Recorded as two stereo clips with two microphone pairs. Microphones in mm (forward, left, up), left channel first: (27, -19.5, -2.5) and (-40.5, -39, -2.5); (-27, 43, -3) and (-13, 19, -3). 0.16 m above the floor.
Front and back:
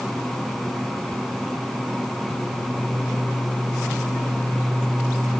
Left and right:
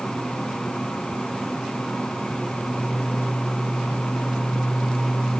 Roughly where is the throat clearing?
I don't hear throat clearing.